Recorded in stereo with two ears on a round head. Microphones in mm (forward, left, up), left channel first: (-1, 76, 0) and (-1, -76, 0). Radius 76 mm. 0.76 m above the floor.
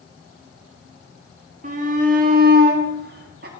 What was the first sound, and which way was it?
A shout, 45° right (ahead or behind).